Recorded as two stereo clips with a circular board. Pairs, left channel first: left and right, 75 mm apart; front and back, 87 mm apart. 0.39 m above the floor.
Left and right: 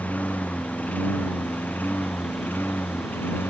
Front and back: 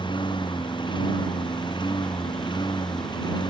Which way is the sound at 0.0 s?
20° left.